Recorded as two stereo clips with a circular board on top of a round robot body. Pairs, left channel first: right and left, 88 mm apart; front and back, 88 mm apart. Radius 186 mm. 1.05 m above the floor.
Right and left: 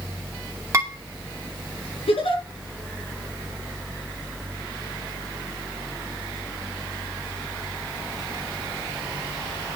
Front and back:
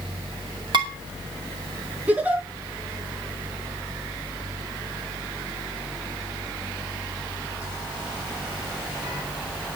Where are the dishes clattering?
145° left, 2.5 m.